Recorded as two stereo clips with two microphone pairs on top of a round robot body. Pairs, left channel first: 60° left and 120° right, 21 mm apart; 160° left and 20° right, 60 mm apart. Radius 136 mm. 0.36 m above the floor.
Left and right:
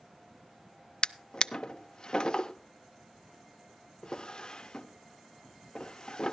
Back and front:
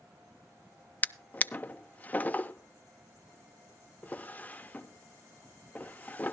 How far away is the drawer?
About 0.6 m.